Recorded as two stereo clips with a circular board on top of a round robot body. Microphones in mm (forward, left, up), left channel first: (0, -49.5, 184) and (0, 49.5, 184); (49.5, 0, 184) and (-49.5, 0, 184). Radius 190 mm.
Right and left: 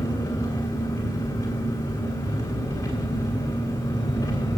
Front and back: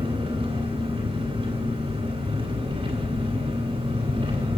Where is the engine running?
155° right, 3 m.